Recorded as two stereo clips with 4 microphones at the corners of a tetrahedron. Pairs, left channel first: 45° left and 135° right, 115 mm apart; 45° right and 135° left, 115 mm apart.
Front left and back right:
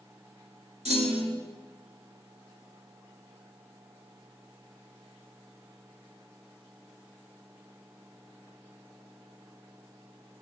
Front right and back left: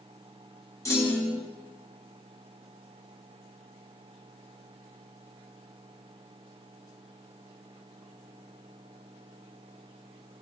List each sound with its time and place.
0.8 s a clunk: 110° right, 1.5 m